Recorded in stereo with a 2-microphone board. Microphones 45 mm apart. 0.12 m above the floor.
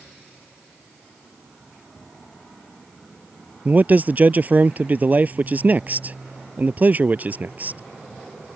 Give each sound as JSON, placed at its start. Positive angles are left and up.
{"t": 3.6, "sound": "a man speaking", "side_deg": -35}